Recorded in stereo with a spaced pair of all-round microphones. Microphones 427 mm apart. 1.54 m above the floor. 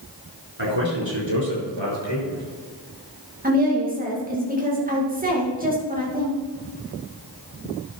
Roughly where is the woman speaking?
Centre.